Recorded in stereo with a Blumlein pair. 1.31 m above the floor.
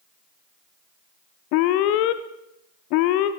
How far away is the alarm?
About 0.6 m.